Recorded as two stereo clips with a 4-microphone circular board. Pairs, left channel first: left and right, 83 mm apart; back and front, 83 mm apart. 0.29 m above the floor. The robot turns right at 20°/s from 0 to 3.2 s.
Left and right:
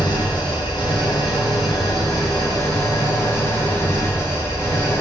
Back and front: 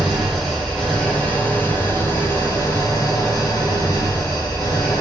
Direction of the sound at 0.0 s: 85° left.